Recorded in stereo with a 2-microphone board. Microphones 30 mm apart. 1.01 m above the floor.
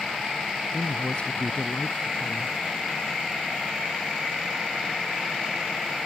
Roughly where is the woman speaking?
Left.